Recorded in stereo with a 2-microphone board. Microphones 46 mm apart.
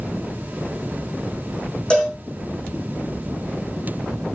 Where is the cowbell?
20° left (ahead or behind), 3.5 m.